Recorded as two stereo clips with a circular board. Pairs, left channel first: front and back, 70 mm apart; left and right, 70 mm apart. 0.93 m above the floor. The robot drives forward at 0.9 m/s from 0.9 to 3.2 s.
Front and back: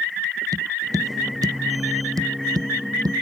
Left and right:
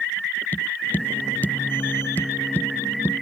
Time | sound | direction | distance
0.5 | tapping | 150° left | ?